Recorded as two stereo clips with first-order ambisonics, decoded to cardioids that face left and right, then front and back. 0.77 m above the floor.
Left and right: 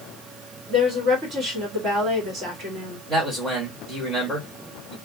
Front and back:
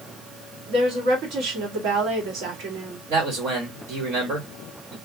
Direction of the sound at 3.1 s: 170° right.